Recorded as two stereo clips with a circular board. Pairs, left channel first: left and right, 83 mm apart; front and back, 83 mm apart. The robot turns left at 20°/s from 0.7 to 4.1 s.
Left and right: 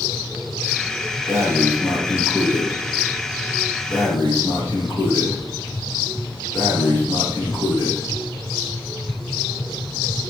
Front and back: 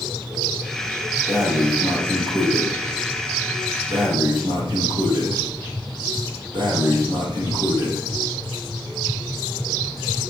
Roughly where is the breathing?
Behind right.